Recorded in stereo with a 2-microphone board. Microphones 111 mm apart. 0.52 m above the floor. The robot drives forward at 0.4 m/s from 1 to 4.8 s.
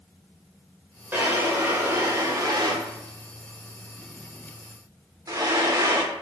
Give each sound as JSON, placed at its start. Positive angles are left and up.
{"t": 1.1, "sound": "a drawer", "side_deg": -20, "distance_m": 1.1}